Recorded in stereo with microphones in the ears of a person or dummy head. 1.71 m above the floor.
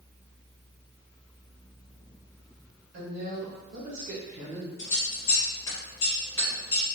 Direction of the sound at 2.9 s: 65° right (ahead or behind).